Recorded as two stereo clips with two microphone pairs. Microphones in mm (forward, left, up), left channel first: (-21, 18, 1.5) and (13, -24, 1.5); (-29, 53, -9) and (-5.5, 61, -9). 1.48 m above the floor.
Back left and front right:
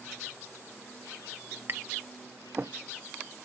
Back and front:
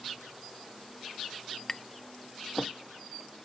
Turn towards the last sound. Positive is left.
turn(degrees=-95)